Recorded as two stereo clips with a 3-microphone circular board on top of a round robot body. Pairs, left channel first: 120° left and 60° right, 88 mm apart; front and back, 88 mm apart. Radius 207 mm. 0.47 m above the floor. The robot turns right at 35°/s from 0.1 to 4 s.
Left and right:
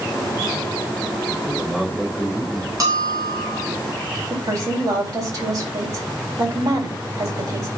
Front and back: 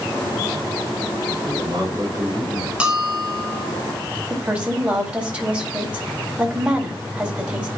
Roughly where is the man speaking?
Behind right.